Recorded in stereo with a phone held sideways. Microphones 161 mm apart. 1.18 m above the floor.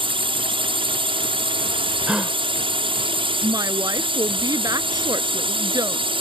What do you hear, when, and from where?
0.0 s a drone: 35° right (ahead or behind)
2.1 s a gasp: 5° right (ahead or behind)
3.4 s a woman speaking: 25° right (ahead or behind)